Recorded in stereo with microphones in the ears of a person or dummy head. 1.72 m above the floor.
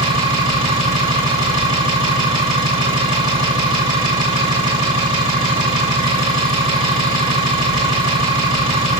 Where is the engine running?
35° right (ahead or behind), 2.5 m.